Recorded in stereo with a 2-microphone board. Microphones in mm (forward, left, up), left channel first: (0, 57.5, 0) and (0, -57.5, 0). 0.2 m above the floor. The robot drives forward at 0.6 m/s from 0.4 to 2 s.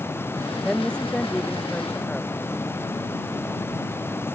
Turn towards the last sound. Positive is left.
turn(degrees=10)  # may be behind; listen again after turning